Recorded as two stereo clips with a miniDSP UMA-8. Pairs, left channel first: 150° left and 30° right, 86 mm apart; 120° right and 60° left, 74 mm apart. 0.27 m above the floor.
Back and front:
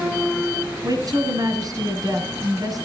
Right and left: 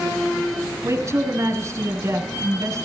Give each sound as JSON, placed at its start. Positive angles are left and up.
{"t": 0.8, "sound": "a woman speaking", "azimuth_deg": 10, "distance_m": 2.5}